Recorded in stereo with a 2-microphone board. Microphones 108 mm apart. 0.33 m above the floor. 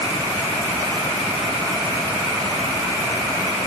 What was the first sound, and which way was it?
Only background noise.